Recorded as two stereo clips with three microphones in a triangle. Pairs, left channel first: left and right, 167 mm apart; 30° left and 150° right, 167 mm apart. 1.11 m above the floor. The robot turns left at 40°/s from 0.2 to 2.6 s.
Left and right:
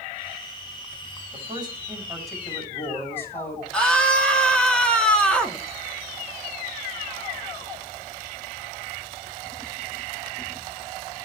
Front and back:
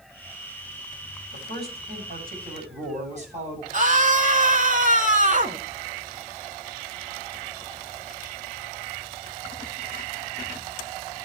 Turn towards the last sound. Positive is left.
turn(degrees=175)